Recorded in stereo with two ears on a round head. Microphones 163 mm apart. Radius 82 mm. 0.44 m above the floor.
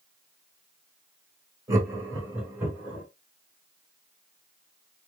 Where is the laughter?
20° right (ahead or behind), 1.9 m; by 3.0 s 10° right (ahead or behind), 2.5 m.